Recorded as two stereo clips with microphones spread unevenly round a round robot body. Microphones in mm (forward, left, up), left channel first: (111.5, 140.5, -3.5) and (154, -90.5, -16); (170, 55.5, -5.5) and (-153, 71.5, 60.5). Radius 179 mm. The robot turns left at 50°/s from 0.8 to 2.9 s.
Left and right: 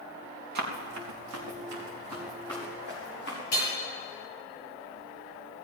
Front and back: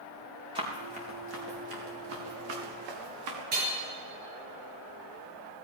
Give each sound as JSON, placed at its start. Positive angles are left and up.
{"t": 0.6, "sound": "running footsteps", "azimuth_deg": -105, "distance_m": 3.5}
{"t": 3.5, "sound": "hammering", "azimuth_deg": 115, "distance_m": 6.5}